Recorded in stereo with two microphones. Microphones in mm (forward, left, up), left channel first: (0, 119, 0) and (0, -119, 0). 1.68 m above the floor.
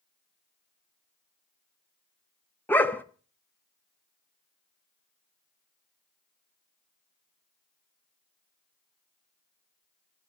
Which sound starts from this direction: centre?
A dog barking, at 2.7 s.